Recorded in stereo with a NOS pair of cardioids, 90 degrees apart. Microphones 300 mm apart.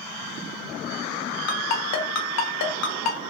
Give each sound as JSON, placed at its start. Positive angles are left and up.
{"t": 1.5, "sound": "a ringtone", "azimuth_deg": 60, "distance_m": 0.8}